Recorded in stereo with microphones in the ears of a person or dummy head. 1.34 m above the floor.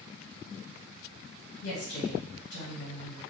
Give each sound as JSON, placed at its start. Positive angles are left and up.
{"t": 1.6, "sound": "a woman speaking", "side_deg": 70, "distance_m": 1.4}